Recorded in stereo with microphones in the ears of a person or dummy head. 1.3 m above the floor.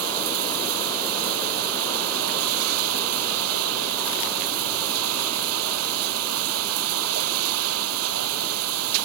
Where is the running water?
75° right (ahead or behind).